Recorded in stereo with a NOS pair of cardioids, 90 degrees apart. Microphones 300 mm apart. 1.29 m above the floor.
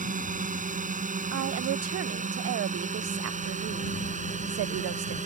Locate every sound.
0.0 s a drone: 25° right
1.3 s a woman speaking: 55° right